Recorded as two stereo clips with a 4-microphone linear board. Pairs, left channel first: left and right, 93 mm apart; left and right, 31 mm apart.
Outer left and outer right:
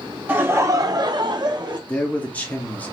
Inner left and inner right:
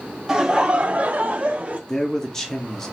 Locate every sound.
0.3 s laughter: 20° right (ahead or behind), 0.7 m; by 1.8 s 50° right (ahead or behind), 1.0 m
1.9 s a man speaking: 15° left (ahead or behind), 0.9 m